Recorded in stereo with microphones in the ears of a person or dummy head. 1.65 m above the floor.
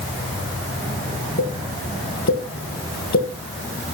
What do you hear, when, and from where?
1.4 s a pop: 50° left (ahead or behind), 1.7 m